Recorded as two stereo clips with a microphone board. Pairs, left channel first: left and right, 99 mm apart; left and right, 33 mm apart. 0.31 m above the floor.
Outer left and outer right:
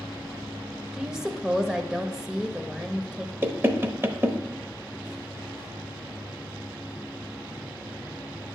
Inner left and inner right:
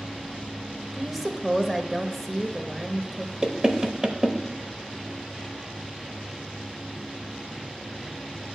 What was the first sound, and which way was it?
A woman speaking, 5° right (ahead or behind).